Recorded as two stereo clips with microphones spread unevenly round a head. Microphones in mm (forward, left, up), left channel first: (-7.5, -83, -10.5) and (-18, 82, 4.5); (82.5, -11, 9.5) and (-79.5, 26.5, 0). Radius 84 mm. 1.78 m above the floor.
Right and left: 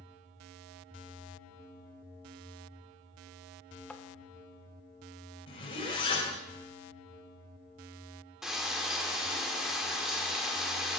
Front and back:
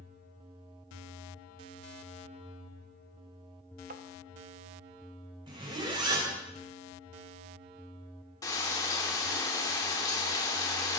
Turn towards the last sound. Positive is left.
turn(degrees=20)